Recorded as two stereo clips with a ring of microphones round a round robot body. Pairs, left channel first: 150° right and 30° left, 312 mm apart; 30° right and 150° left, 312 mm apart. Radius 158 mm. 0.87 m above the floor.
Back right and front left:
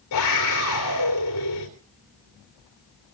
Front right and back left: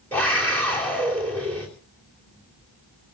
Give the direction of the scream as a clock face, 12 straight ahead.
4 o'clock.